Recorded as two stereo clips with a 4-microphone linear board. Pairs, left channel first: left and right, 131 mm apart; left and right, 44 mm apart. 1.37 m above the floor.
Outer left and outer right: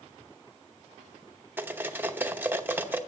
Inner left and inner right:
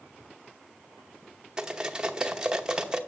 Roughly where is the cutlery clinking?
Centre.